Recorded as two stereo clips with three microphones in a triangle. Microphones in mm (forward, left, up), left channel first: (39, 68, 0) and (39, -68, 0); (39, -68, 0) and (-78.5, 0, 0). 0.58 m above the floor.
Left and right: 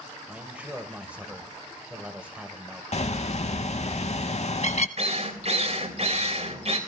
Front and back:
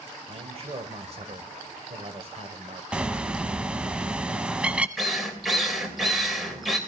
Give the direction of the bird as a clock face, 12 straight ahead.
10 o'clock.